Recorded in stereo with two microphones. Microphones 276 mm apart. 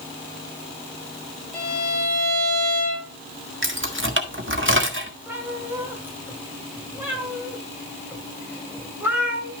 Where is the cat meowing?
5° right (ahead or behind), 2.5 m.